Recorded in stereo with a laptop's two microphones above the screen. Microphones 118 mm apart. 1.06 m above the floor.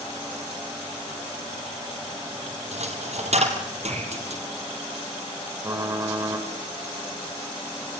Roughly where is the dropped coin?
Right.